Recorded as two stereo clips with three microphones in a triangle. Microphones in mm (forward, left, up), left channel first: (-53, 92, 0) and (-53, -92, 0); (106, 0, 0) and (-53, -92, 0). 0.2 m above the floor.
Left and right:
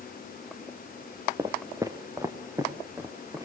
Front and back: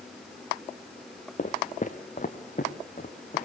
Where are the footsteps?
20° right, 1.1 m; by 3.5 s 15° right, 3 m.